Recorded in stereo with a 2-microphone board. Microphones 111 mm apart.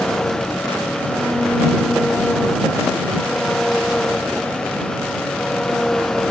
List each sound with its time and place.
0.0 s an engine running: 5° left (ahead or behind)